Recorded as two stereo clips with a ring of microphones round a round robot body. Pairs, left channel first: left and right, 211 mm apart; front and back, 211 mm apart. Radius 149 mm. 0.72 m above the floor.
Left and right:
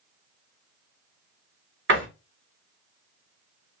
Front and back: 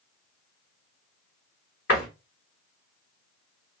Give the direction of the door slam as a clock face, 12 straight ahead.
2 o'clock.